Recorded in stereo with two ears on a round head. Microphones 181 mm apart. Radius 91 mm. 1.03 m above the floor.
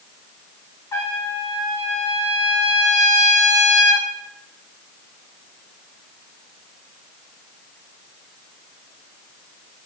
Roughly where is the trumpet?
Centre.